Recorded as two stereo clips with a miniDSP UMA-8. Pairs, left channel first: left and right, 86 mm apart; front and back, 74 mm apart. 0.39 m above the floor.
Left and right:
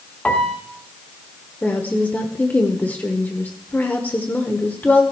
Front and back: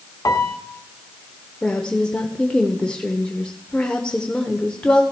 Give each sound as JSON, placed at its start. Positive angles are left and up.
{"t": 0.2, "sound": "a piano", "azimuth_deg": 20, "distance_m": 1.4}
{"t": 1.6, "sound": "a woman speaking", "azimuth_deg": 60, "distance_m": 1.2}